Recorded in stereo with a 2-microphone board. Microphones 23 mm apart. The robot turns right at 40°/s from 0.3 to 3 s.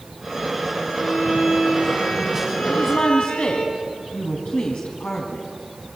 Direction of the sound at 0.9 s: 40° left.